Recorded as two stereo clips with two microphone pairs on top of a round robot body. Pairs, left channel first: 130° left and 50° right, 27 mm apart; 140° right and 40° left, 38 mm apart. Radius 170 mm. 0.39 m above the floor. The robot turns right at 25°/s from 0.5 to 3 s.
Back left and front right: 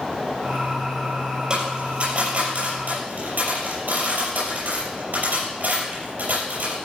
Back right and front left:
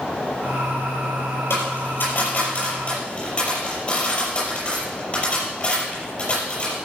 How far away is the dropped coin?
About 6 m.